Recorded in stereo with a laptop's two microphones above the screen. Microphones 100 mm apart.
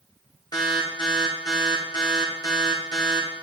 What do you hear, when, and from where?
0.5 s an alarm: 45° left (ahead or behind), 1.5 m